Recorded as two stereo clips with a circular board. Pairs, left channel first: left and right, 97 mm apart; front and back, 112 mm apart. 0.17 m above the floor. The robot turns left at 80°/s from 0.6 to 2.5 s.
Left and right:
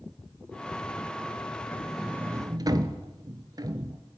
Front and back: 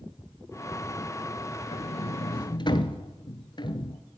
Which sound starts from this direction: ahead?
A sliding door, at 1.7 s.